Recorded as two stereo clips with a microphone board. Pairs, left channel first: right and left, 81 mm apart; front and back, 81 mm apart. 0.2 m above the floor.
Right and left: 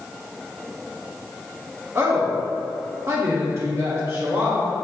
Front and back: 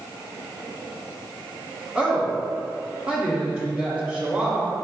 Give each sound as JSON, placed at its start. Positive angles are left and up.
{"t": 1.9, "sound": "a woman speaking", "azimuth_deg": 115, "distance_m": 1.4}